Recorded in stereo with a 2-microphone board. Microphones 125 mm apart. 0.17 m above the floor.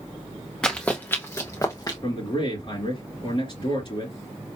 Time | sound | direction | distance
0.6 | running footsteps | 5° left (ahead or behind) | 1.2 m
2.0 | a man speaking | 45° left (ahead or behind) | 3.5 m